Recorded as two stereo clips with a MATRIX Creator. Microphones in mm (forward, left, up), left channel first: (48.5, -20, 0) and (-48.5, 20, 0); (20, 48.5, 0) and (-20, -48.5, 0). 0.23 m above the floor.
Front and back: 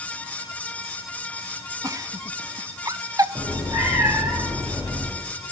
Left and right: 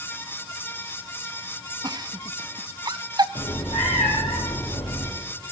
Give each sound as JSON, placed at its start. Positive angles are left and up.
{"t": 1.8, "sound": "a giggle", "azimuth_deg": -150, "distance_m": 0.5}
{"t": 3.4, "sound": "a cat meowing", "azimuth_deg": 90, "distance_m": 4.5}